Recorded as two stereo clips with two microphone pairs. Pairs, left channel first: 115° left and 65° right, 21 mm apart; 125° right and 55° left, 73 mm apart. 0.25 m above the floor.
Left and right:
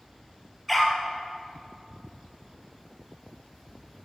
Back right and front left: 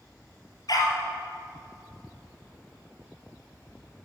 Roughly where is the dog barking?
Behind right.